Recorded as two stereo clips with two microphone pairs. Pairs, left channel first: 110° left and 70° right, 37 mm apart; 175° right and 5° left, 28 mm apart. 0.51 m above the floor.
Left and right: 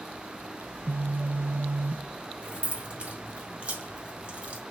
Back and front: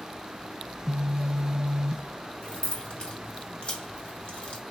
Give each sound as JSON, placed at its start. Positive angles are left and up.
{"t": 0.7, "sound": "a phone buzzing", "azimuth_deg": -65, "distance_m": 1.0}
{"t": 2.4, "sound": "keys jangling", "azimuth_deg": -130, "distance_m": 2.0}